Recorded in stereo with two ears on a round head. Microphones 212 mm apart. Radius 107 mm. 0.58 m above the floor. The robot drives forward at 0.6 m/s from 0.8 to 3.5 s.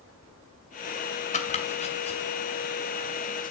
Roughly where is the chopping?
Left.